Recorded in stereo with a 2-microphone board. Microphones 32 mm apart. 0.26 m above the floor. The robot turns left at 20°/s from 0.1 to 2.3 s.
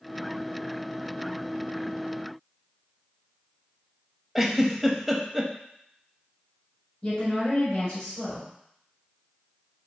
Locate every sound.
4.3 s a giggle: 5° right (ahead or behind), 0.6 m
7.0 s a woman speaking: 25° left (ahead or behind), 1.5 m